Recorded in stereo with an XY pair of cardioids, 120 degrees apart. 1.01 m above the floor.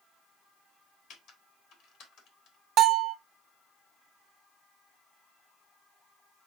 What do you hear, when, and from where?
1.1 s typing on a keyboard: 70° left, 1.3 m
2.8 s a bell: 55° right, 0.6 m